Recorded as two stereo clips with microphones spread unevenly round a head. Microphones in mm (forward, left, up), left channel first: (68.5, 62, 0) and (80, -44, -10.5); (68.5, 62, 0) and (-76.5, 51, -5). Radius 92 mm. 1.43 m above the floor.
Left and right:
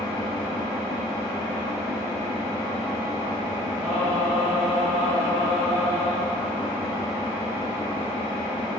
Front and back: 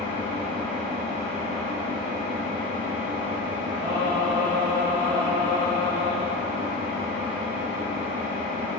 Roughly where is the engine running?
Behind.